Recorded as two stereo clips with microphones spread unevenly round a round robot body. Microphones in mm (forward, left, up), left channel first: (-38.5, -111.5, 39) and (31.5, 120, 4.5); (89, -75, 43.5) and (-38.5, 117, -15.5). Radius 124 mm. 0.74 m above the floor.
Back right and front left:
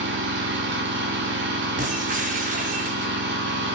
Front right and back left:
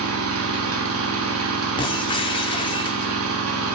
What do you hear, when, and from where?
0.0 s an engine running: 115° left, 1.6 m
1.8 s breaking glass: 15° left, 1.2 m